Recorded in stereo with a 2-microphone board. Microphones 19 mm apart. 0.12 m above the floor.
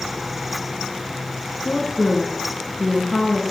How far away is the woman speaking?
About 1.7 m.